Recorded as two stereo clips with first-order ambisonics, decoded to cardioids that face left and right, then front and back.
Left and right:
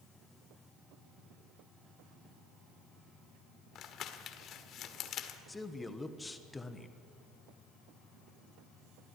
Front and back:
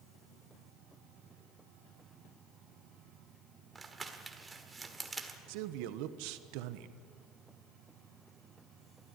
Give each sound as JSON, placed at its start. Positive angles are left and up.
{"t": 3.8, "sound": "crumpling", "azimuth_deg": 110, "distance_m": 1.6}
{"t": 5.5, "sound": "a man speaking", "azimuth_deg": 170, "distance_m": 1.2}